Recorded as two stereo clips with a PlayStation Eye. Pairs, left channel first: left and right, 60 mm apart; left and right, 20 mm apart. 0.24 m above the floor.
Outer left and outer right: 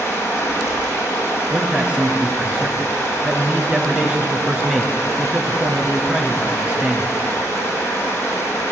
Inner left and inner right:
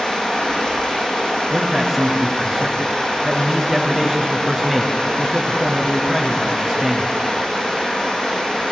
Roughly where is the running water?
Left.